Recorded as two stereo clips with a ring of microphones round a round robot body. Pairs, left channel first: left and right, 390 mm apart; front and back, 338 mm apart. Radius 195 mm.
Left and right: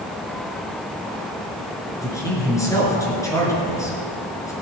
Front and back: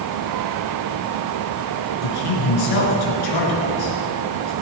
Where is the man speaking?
10° left, 4.5 m.